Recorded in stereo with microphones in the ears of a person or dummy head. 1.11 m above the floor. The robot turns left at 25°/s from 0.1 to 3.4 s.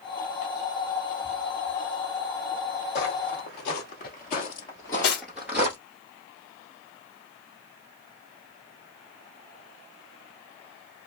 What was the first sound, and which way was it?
Footsteps, 45° left (ahead or behind).